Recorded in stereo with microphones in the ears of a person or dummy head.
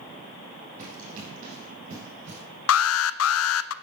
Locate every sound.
0.8 s running footsteps: 50° right (ahead or behind), 5 m; by 2.4 s 45° right (ahead or behind), 5.5 m
2.7 s an alarm: 90° left, 0.6 m